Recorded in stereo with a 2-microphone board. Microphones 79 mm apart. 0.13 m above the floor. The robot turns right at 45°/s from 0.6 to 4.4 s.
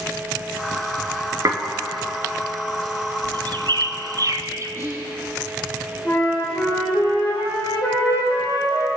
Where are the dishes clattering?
45° right (ahead or behind), 1.2 m.